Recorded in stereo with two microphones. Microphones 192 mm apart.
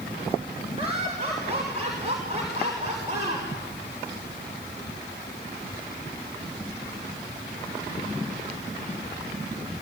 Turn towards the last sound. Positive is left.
turn(degrees=-40)  # may be behind; listen again after turning